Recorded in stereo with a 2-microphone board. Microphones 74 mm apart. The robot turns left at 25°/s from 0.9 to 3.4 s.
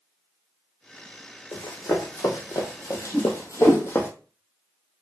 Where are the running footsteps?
65° left (ahead or behind), 1.1 m; by 4.1 s 30° left (ahead or behind), 0.8 m.